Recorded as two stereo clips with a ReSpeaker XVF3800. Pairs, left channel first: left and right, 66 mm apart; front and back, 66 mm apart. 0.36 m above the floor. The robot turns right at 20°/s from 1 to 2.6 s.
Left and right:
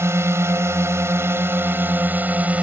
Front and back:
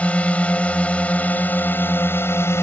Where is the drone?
65° right; by 2.6 s 30° right.